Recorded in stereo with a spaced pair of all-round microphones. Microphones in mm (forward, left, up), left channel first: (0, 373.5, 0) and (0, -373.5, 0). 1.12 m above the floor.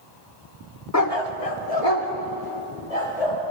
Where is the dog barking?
25° left (ahead or behind), 0.5 m; by 3.4 s 50° left (ahead or behind), 2.5 m.